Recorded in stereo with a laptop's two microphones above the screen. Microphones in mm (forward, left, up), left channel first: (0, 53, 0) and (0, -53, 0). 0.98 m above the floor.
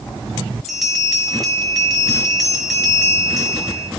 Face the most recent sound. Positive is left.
turn(degrees=0)  # may be behind; listen again after turning